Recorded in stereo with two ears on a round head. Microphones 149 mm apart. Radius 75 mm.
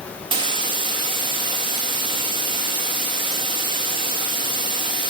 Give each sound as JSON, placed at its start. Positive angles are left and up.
{"t": 0.3, "sound": "a hiss", "side_deg": -30, "distance_m": 1.5}